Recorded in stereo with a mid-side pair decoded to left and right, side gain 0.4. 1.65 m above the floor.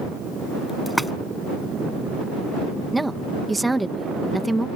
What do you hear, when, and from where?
0.9 s a splash: 5° left
2.9 s a woman speaking: 10° right